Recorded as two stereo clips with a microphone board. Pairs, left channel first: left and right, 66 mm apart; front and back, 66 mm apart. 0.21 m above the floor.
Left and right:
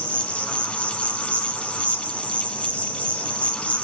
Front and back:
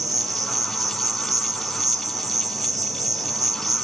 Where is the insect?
160° left, 1.1 m.